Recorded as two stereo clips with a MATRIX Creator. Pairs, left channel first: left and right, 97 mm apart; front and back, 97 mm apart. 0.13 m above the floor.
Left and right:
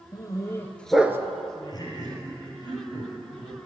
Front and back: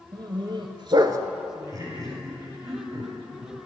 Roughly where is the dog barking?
Behind left.